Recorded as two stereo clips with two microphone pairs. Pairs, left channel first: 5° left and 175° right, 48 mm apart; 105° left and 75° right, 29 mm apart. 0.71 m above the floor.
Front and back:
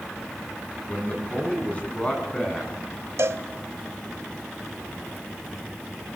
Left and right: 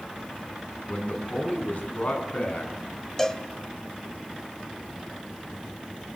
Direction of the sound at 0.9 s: 70° left.